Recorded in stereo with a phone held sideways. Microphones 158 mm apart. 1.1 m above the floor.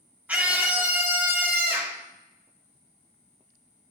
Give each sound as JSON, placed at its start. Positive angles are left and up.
{"t": 0.3, "sound": "a scream", "side_deg": -10, "distance_m": 3.0}